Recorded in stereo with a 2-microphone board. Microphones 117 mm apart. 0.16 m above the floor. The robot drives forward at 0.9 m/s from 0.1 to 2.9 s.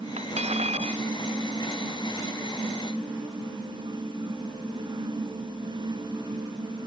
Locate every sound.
0.2 s cutlery clinking: 65° right (ahead or behind)